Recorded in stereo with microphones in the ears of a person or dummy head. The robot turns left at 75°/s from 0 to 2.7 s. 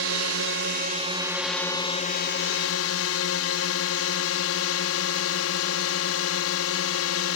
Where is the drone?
70° right; by 7.4 s 85° left.